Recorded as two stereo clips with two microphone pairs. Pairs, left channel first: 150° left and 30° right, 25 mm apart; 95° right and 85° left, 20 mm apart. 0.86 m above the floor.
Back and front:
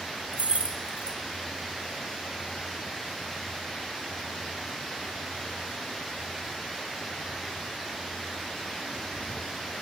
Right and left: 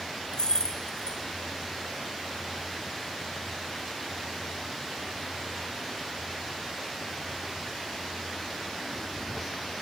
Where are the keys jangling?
55° right, 0.5 m.